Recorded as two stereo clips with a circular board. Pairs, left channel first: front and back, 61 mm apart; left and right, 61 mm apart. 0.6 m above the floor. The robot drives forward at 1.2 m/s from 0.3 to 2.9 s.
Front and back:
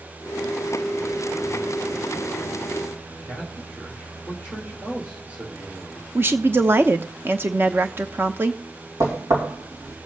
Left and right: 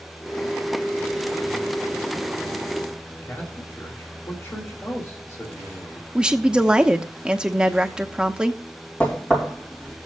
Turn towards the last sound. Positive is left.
turn(degrees=155)